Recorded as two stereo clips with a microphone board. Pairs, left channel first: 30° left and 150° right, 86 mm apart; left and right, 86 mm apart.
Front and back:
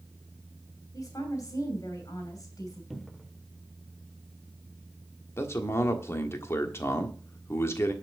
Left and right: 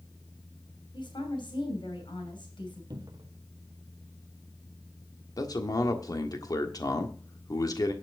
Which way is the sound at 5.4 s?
75° left.